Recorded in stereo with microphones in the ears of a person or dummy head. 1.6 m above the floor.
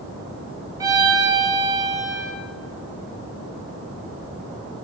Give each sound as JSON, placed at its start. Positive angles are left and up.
{"t": 0.8, "sound": "a violin", "side_deg": -15, "distance_m": 0.9}